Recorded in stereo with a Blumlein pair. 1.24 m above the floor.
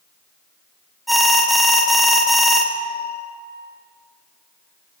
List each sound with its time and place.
1.1 s an alarm: straight ahead, 0.7 m